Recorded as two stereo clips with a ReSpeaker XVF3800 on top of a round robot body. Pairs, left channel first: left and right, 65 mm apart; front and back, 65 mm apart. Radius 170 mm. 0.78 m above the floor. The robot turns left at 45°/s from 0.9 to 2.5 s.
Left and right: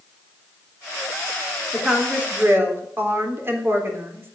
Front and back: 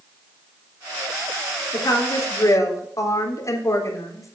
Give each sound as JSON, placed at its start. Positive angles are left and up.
{"t": 1.7, "sound": "a woman speaking", "azimuth_deg": 0, "distance_m": 3.5}